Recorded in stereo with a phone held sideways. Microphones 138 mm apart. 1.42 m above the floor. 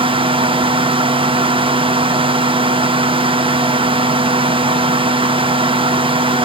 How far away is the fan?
About 0.8 m.